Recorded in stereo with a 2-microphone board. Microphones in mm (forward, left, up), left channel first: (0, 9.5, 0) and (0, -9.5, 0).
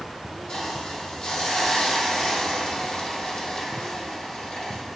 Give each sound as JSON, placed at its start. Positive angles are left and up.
{"t": 0.5, "sound": "a hiss", "side_deg": 65, "distance_m": 4.0}